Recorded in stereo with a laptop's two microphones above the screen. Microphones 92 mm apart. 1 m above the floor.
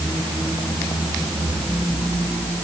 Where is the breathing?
No breathing in this recording.